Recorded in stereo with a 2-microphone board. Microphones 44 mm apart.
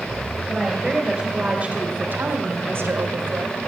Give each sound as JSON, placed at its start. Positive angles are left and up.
{"t": 0.5, "sound": "a woman speaking", "side_deg": -10, "distance_m": 2.5}